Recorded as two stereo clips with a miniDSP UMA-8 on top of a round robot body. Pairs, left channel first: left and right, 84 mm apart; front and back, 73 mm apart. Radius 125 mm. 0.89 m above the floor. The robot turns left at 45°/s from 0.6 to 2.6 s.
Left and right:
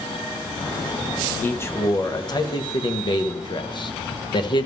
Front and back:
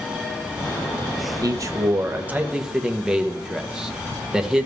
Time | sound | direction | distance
1.4 | a man speaking | 155° left | 1.2 m